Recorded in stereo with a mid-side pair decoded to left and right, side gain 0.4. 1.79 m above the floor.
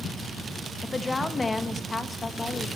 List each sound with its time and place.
0.8 s a woman speaking: 25° left, 1.0 m